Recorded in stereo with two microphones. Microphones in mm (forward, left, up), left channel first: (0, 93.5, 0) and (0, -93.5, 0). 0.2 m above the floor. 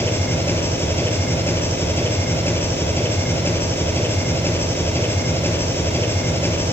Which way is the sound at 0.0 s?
10° left (ahead or behind).